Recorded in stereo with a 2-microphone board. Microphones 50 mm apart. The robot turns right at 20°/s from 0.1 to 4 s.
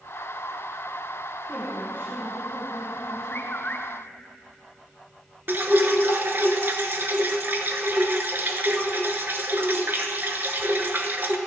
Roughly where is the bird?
Left.